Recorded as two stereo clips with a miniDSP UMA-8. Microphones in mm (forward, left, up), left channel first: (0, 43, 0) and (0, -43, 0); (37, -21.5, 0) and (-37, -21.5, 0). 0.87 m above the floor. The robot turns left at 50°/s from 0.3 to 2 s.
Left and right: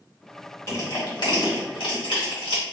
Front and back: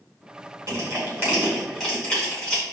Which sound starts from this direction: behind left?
Crushing, at 0.7 s.